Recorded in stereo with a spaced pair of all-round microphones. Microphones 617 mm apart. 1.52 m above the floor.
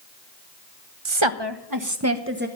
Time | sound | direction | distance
1.1 | a woman speaking | 55° right (ahead or behind) | 0.8 m